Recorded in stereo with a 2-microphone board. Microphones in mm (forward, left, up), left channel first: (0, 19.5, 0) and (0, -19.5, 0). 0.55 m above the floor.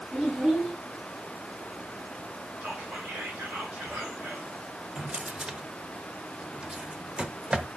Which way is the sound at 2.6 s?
60° right (ahead or behind).